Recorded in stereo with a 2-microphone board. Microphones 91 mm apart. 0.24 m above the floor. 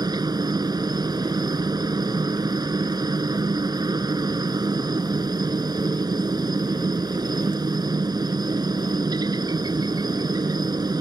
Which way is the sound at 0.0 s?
50° right (ahead or behind).